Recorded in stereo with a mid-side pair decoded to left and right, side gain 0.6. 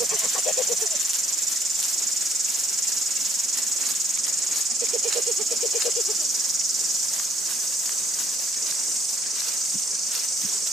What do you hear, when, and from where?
0.0 s an insect: 30° right, 2.5 m